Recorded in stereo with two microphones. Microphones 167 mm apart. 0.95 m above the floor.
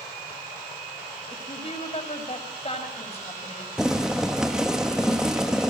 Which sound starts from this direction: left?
A woman speaking, at 1.3 s.